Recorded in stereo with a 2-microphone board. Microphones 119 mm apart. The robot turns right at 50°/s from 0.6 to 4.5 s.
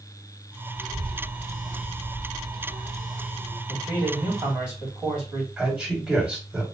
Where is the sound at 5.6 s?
10° right (ahead or behind), 2.5 m.